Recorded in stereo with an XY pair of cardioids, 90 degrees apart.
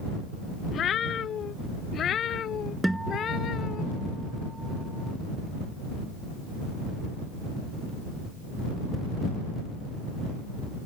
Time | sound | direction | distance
0.7 | a cat meowing | 65° left | ?
2.8 | a guitar | 10° right | ?